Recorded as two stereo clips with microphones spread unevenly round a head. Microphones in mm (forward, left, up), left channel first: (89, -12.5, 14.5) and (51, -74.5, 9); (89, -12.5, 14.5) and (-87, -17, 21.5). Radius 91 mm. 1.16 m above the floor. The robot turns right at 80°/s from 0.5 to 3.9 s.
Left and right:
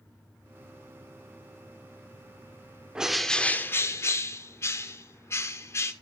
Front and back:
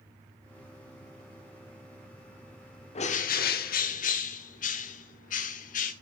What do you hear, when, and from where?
3.0 s a bird: 45° right, 0.9 m; by 5.9 s 35° left, 0.9 m